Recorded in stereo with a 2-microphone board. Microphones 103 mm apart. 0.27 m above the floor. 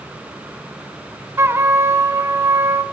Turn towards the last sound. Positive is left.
turn(degrees=-25)  # may be behind; listen again after turning